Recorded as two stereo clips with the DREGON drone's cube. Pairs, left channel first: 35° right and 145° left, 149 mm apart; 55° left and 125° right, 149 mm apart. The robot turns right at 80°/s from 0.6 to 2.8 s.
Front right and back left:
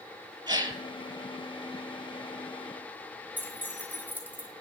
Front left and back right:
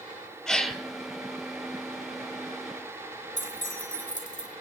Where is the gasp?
140° left, 0.9 m; by 0.8 s 160° left, 0.9 m.